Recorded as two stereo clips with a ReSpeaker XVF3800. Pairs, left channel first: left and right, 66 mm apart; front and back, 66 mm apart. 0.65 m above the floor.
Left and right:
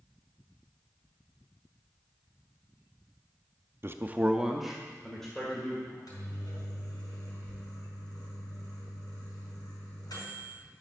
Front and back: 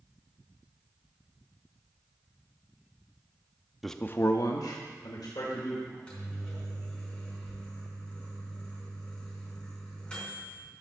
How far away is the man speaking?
About 0.6 m.